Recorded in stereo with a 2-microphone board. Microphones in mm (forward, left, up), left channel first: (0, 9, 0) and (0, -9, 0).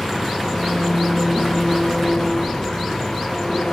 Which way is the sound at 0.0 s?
25° left (ahead or behind).